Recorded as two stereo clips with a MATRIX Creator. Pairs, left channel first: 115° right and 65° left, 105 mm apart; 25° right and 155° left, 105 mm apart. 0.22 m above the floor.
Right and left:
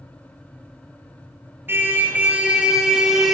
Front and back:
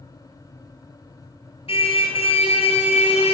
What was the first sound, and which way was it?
A car horn, straight ahead.